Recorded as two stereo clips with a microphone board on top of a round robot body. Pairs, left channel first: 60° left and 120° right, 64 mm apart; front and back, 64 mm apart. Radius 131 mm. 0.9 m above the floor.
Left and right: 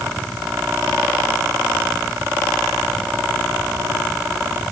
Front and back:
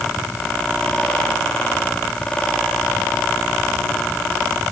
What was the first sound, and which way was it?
Only background noise.